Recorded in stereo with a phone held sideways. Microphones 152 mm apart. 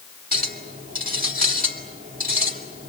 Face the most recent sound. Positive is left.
turn(degrees=-70)  # may be behind; listen again after turning